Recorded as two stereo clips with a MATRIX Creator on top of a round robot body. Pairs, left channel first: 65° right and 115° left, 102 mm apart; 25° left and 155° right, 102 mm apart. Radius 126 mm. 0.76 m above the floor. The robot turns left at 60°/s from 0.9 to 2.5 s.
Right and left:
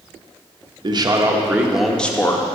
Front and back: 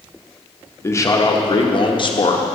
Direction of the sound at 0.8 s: 80° left.